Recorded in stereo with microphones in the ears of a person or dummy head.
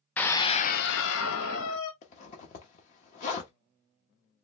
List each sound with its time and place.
0.2 s a scream: centre (ahead or behind), 0.6 m; by 1.9 s 80° left, 1.2 m
2.0 s a zipper: 35° left (ahead or behind), 0.9 m